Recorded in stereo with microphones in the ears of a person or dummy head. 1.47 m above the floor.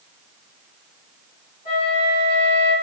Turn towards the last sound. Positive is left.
turn(degrees=45)  # may be behind; listen again after turning